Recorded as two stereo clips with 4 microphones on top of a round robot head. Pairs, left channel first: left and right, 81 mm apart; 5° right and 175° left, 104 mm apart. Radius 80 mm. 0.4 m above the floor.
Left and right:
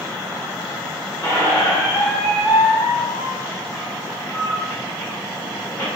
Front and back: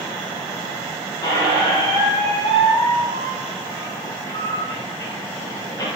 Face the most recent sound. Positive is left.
turn(degrees=35)